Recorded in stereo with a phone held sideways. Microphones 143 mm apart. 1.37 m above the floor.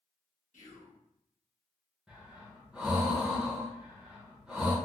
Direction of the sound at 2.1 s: 5° right (ahead or behind).